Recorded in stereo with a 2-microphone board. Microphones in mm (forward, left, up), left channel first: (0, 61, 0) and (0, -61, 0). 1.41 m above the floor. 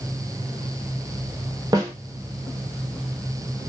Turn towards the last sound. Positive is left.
turn(degrees=-30)  # may be behind; listen again after turning